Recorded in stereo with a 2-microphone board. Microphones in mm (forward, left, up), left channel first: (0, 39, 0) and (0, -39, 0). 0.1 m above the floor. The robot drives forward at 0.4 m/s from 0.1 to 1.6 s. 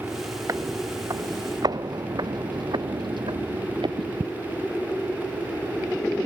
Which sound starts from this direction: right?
Footsteps, at 0.5 s.